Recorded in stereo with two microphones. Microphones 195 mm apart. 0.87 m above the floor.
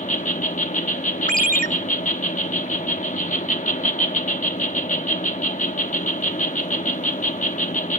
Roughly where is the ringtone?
Right.